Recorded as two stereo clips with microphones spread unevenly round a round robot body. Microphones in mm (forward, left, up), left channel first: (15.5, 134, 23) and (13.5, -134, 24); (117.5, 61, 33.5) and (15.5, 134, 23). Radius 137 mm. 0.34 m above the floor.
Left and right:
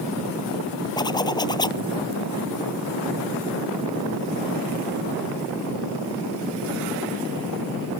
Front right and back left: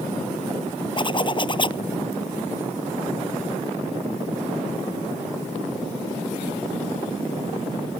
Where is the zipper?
15° left.